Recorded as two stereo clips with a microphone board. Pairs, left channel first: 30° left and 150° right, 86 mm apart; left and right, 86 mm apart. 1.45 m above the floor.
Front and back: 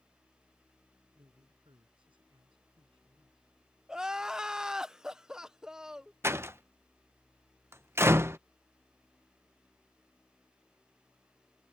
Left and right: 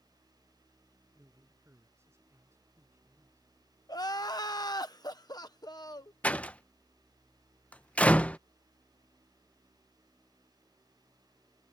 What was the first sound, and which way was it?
A man speaking, 150° right.